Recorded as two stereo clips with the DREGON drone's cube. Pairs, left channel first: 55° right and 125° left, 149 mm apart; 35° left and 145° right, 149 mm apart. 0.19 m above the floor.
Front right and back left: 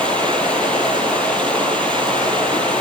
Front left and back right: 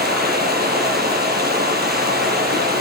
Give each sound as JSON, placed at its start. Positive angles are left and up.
{"t": 0.0, "sound": "running water", "azimuth_deg": -140, "distance_m": 3.0}